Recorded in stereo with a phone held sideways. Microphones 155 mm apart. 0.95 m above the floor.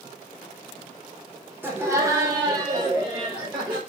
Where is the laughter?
15° right (ahead or behind), 0.7 m; by 3.8 s 25° right (ahead or behind), 1.3 m.